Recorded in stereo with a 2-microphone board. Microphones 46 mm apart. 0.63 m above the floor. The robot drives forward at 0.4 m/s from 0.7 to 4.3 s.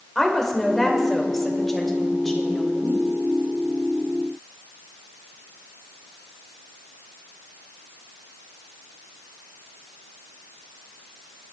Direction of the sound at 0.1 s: 5° left (ahead or behind).